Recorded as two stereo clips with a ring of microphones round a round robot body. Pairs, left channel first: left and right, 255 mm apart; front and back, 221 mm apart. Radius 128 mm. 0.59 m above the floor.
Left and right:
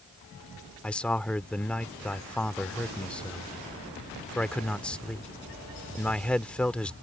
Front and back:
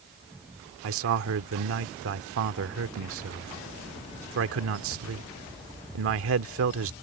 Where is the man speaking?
175° left.